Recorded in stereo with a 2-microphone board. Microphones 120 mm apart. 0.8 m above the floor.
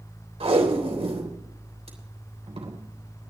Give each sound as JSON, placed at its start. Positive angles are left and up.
{"t": 0.4, "sound": "tape being pulled", "side_deg": -60, "distance_m": 3.0}